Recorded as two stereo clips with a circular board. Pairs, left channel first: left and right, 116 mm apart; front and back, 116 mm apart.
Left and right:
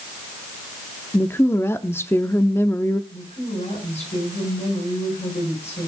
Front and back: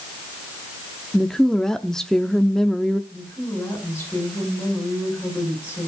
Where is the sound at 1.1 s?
80° left, 0.7 m.